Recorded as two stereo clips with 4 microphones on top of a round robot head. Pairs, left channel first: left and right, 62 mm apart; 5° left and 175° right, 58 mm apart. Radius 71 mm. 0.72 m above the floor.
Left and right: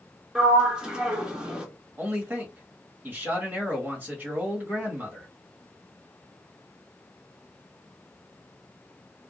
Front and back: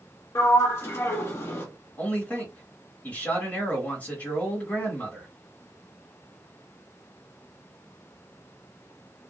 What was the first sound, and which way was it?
A sliding door, 20° right.